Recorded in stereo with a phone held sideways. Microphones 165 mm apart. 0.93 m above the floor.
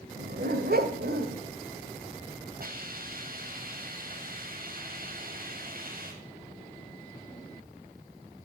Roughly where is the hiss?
Right.